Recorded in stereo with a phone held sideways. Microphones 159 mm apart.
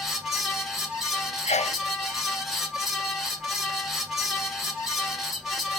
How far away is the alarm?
I don't hear an alarm.